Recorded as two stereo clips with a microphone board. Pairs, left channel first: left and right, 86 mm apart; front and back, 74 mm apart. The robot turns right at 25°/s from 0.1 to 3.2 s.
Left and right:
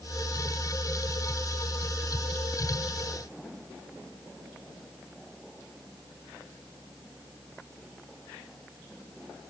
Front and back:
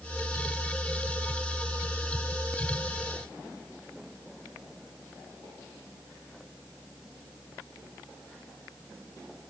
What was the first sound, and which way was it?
Only background noise.